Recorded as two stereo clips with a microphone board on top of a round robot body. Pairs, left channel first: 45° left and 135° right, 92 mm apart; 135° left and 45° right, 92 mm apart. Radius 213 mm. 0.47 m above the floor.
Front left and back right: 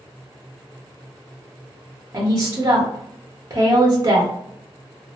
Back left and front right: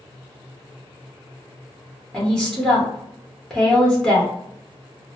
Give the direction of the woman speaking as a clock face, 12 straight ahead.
5 o'clock.